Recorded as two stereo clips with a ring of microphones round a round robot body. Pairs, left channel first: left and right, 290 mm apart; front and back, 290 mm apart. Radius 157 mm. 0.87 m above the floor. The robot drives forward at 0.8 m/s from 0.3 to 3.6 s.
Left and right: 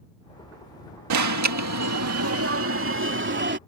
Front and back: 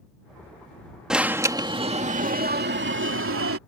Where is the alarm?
90° right; by 3.6 s 140° right.